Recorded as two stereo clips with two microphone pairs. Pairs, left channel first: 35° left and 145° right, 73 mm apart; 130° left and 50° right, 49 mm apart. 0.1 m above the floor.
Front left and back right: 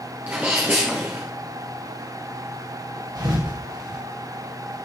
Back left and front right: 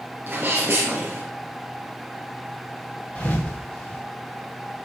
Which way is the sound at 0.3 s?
85° right.